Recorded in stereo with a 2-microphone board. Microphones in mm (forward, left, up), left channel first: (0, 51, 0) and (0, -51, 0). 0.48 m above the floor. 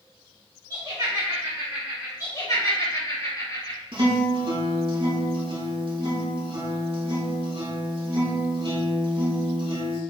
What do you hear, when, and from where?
0.7 s laughter: 35° right (ahead or behind), 2.5 m; by 2.1 s 20° right (ahead or behind), 1.8 m
2.2 s laughter: 35° left (ahead or behind), 1.7 m
3.9 s a guitar: 60° right (ahead or behind), 1.8 m